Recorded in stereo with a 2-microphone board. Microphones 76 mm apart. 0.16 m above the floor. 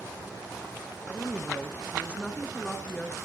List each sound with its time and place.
1.1 s a woman speaking: 15° left (ahead or behind), 1.6 m